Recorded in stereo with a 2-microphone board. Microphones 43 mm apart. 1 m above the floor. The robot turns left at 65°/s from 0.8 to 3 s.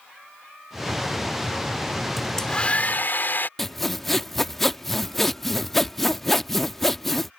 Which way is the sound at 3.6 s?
5° left (ahead or behind).